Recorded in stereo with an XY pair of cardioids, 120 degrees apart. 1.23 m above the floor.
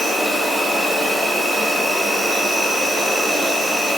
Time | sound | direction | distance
0.0 | an insect | 5° left | 2 m